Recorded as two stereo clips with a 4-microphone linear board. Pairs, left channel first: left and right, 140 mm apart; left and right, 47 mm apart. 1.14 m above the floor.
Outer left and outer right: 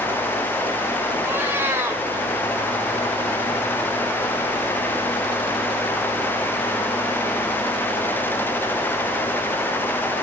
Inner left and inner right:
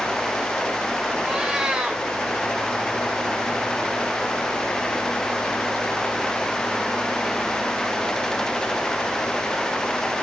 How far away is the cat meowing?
About 2.5 m.